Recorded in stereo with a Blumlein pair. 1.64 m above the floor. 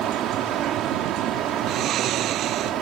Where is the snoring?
30° right.